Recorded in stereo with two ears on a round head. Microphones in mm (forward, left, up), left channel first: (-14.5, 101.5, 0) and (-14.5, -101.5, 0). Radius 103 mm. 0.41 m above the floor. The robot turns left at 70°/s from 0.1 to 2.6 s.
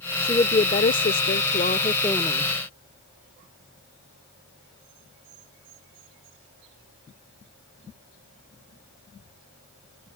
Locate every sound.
0.2 s a woman speaking: 155° left; by 2.5 s 5° right